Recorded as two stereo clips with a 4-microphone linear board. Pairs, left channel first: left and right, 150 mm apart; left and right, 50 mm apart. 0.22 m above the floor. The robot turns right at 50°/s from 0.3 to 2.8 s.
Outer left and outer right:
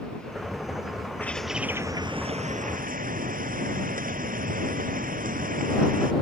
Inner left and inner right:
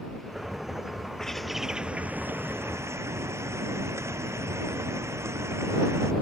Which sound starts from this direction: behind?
A bird, at 1.2 s.